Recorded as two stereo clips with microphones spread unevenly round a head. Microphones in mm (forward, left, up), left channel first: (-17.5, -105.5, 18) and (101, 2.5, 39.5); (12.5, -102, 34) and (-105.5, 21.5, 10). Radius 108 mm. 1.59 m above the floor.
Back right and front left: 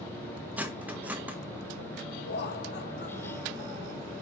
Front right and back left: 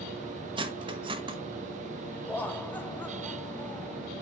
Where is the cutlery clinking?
90° left, 0.8 m.